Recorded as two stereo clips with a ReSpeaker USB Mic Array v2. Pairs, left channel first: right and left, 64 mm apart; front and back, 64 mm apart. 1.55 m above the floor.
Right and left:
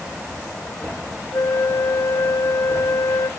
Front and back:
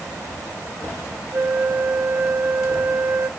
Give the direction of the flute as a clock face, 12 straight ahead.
4 o'clock.